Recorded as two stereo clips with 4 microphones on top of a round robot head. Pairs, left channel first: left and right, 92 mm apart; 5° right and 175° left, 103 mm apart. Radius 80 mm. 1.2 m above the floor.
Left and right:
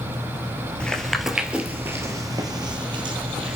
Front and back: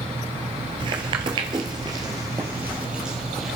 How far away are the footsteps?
About 1.5 m.